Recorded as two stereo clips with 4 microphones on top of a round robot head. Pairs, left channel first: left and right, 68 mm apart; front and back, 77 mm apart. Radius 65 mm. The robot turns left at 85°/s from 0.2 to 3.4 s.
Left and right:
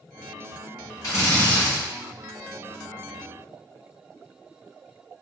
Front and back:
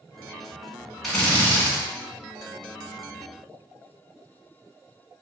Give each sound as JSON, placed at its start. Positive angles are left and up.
{"t": 1.0, "sound": "a drill", "azimuth_deg": 85, "distance_m": 1.4}